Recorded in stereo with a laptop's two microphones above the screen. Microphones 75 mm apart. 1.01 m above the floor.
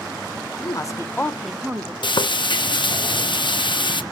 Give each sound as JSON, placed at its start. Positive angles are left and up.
{"t": 0.6, "sound": "a woman speaking", "side_deg": 50, "distance_m": 0.9}
{"t": 2.0, "sound": "frying", "side_deg": 75, "distance_m": 0.7}